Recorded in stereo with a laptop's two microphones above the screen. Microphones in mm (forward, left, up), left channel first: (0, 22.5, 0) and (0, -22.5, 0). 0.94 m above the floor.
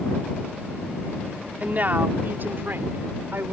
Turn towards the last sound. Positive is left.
turn(degrees=-60)  # may be behind; listen again after turning